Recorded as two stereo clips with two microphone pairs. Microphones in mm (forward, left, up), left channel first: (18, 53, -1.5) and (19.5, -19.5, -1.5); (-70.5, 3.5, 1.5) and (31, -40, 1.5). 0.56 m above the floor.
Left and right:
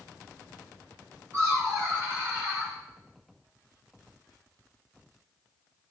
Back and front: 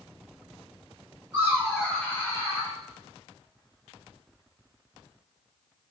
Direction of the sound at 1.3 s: 95° right.